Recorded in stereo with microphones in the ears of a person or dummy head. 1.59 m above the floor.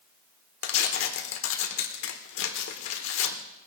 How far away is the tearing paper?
About 1.3 m.